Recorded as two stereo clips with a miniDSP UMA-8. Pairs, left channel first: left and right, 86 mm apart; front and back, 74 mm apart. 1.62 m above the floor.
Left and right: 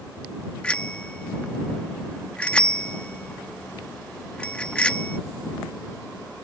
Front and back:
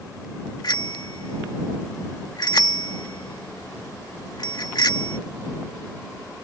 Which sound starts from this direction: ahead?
A bicycle bell, at 0.6 s.